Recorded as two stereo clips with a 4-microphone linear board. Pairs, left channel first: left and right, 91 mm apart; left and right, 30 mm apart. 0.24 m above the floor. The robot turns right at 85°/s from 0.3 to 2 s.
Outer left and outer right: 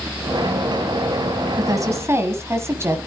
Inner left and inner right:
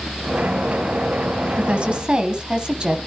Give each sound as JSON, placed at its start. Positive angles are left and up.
{"t": 1.6, "sound": "a woman speaking", "azimuth_deg": -85, "distance_m": 1.7}